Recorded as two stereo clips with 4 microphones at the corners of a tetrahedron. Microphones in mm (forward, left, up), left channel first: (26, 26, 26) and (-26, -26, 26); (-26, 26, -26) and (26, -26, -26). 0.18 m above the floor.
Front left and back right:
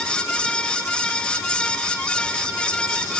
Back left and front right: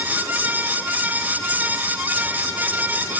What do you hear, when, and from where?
Only background noise.